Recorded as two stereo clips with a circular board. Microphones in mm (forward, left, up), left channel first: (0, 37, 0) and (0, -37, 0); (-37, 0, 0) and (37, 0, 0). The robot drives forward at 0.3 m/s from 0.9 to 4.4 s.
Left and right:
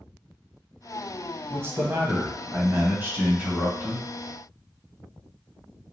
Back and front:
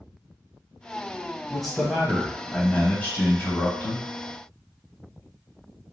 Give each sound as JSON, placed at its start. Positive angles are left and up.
{"t": 1.5, "sound": "a man speaking", "azimuth_deg": -90, "distance_m": 1.1}